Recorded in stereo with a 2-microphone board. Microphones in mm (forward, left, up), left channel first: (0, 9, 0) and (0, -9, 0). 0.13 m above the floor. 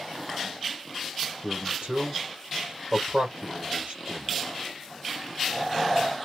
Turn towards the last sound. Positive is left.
turn(degrees=-60)  # may be behind; listen again after turning